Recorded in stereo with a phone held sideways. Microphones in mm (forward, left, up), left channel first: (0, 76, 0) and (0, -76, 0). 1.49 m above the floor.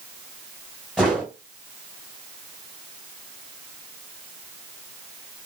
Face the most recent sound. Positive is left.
turn(degrees=-5)  # may be behind; listen again after turning